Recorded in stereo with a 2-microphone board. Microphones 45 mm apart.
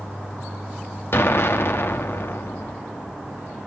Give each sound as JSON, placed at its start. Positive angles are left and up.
{"t": 1.1, "sound": "an explosion", "side_deg": 60, "distance_m": 1.2}